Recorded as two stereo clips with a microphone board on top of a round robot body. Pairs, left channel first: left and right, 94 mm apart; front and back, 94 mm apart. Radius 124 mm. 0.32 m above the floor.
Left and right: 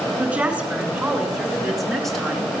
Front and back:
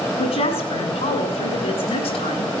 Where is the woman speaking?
15° right, 6 m; by 2.5 s 5° left, 5.5 m.